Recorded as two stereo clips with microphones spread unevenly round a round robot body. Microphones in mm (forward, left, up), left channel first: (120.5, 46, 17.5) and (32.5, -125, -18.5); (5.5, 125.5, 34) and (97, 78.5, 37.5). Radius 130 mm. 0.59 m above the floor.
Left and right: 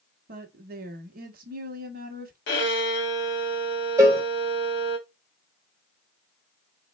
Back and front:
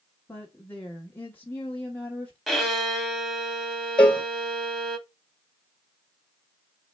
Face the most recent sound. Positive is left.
turn(degrees=-145)